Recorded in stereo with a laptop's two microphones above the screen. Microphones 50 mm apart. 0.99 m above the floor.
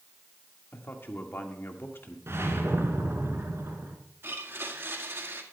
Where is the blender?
50° right (ahead or behind), 1.7 m.